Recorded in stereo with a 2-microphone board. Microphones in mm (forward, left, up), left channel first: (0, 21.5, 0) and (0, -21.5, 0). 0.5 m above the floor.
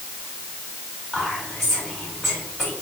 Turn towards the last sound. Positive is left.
turn(degrees=-5)  # may be behind; listen again after turning